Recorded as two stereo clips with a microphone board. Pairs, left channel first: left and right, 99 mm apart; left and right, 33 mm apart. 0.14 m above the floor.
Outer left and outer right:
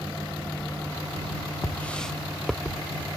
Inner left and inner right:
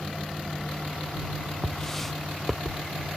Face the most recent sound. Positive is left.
turn(degrees=-5)  # may be behind; listen again after turning